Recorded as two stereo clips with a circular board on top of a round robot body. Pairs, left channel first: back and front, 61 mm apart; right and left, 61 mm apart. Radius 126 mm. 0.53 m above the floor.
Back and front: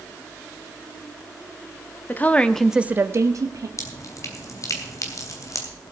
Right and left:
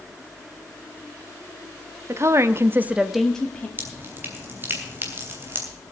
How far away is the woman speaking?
About 1.2 m.